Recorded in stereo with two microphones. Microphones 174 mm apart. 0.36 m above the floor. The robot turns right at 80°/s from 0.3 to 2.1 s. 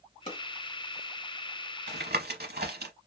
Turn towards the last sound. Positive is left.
turn(degrees=-70)  # may be behind; listen again after turning